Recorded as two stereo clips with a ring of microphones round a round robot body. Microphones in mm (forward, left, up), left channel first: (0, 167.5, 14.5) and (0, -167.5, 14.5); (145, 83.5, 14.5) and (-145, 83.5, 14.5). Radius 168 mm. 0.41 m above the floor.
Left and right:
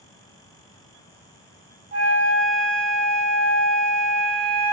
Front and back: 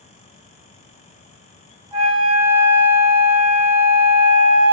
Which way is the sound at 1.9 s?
160° right.